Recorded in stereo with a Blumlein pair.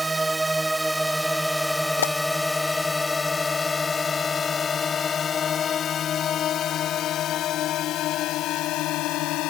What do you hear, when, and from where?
0.0 s a drone: 10° right; by 9.5 s 40° left
2.0 s a pop: 65° left